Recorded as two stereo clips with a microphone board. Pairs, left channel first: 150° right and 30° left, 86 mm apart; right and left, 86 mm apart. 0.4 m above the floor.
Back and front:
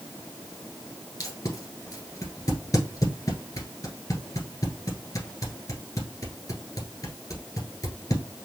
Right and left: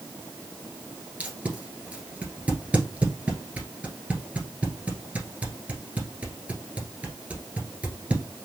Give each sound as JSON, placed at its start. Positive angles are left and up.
{"t": 1.2, "sound": "tape being pulled", "azimuth_deg": 165, "distance_m": 1.5}